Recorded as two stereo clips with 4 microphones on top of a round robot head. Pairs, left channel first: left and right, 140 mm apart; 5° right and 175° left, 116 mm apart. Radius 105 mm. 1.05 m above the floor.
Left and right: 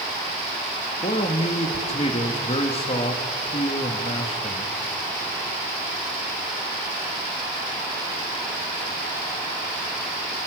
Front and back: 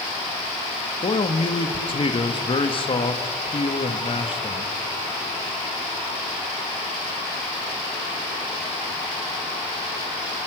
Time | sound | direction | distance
1.0 | a man speaking | 35° left | 1.3 m